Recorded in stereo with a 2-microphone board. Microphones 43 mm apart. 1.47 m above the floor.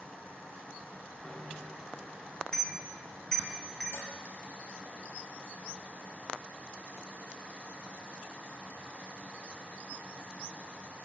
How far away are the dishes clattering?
About 5.5 m.